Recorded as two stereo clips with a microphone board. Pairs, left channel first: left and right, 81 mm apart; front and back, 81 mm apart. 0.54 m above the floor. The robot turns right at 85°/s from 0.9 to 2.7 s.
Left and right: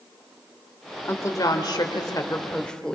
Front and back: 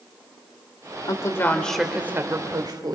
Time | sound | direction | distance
1.1 | a woman speaking | 30° left | 1.9 m